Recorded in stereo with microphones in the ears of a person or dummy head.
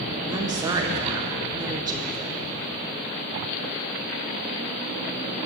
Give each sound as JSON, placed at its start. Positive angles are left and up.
{"t": 0.3, "sound": "a woman speaking", "side_deg": -15, "distance_m": 1.4}